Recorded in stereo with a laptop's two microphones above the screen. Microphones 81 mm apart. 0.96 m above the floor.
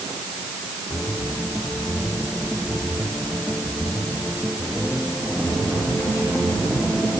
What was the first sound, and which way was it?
Only background noise.